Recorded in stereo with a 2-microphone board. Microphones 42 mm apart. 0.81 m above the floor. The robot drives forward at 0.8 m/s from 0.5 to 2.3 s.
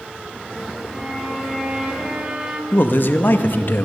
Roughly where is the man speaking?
Left.